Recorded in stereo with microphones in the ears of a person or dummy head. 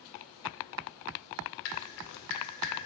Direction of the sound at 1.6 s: 65° left (ahead or behind).